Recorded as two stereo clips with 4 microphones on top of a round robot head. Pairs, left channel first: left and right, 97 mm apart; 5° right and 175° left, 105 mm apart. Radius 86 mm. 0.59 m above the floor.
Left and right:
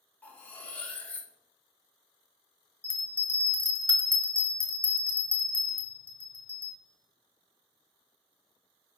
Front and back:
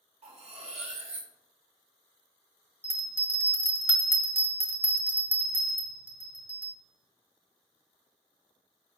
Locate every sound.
0.2 s cutlery clinking: 165° left, 1.4 m
2.8 s a bell: 130° left, 1.3 m